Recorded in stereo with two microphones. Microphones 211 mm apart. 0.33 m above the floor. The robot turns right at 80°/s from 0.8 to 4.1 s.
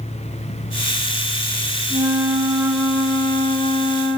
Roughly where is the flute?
Right.